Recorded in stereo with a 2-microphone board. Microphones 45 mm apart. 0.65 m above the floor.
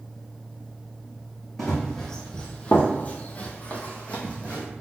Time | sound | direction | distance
1.6 | running footsteps | 5° left (ahead or behind) | 1.3 m